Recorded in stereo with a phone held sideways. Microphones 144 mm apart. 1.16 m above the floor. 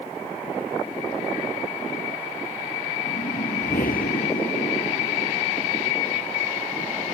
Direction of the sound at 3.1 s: 80° left.